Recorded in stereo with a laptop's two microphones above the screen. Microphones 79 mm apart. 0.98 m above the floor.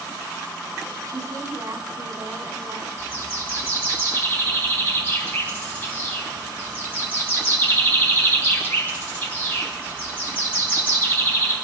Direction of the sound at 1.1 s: 60° right (ahead or behind).